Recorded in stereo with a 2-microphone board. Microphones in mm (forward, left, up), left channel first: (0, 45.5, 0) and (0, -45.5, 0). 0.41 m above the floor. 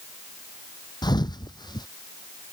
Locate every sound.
1.0 s a thud: 50° left (ahead or behind)